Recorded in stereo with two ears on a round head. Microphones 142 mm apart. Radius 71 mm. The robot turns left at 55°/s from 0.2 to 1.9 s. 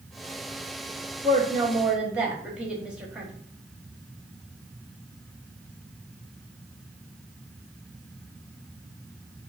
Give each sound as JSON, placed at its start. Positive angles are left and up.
{"t": 1.2, "sound": "a woman speaking", "azimuth_deg": -135, "distance_m": 1.4}